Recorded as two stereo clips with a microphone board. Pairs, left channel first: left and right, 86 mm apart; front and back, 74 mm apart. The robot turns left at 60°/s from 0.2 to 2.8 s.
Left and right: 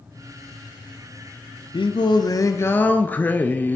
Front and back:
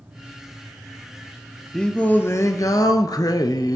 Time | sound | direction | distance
1.7 | singing | 85° left | 0.5 m